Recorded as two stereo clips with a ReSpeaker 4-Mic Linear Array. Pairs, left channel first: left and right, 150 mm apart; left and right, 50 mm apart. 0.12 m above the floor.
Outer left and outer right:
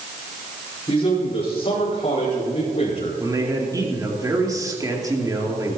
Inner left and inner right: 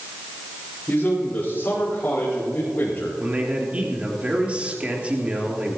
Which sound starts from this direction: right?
A man speaking, at 3.2 s.